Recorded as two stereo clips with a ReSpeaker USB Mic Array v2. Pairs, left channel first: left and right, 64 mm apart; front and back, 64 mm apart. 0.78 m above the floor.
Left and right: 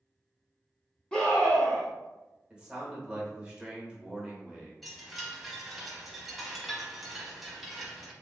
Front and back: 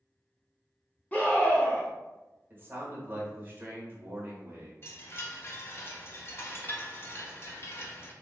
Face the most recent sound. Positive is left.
turn(degrees=0)